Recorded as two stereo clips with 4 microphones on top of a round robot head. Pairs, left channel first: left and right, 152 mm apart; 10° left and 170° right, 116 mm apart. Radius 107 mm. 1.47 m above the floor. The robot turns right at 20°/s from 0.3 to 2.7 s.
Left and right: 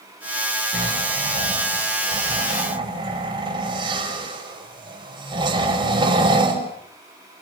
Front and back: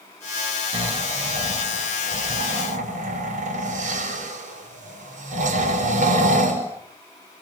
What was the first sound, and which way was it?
Snoring, 165° left.